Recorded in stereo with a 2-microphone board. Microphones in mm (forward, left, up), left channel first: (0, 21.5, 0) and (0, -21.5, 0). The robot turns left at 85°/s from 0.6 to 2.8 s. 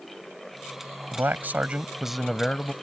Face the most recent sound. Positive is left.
turn(degrees=125)